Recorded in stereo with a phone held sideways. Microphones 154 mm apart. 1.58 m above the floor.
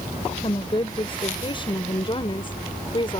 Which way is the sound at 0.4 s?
35° left (ahead or behind).